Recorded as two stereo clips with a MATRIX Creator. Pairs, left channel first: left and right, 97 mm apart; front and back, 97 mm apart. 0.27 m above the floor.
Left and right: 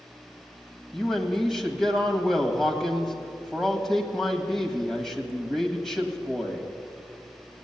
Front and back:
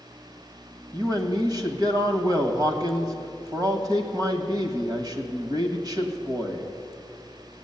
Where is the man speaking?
175° left, 1.7 m.